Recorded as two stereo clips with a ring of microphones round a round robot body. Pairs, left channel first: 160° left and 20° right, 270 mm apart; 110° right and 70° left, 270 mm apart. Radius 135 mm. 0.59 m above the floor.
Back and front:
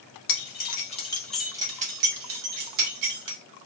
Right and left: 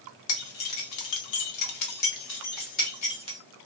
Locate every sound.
0.3 s keys jangling: 150° right, 1.0 m; by 3.4 s 40° right, 1.2 m